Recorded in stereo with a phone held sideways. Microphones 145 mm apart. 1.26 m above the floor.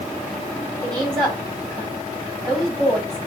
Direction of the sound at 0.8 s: 30° right (ahead or behind).